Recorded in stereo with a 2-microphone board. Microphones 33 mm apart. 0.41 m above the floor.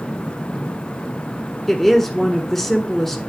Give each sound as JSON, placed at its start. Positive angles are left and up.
{"t": 1.7, "sound": "a woman speaking", "side_deg": 5, "distance_m": 1.3}